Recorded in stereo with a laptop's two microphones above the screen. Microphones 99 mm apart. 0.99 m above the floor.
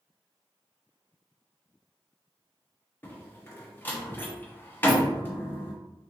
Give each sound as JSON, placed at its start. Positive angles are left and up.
{"t": 3.0, "sound": "a door slam", "side_deg": 20, "distance_m": 0.9}